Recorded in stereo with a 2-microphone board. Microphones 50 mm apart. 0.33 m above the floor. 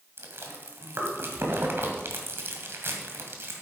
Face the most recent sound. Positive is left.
turn(degrees=-55)  # may be behind; listen again after turning